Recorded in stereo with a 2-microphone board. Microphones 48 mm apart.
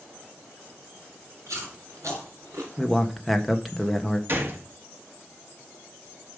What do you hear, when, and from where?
1.5 s chewing: 80° right, 5.5 m
2.8 s a man speaking: centre (ahead or behind), 1.5 m
4.3 s a gunshot: 50° right (ahead or behind), 1.7 m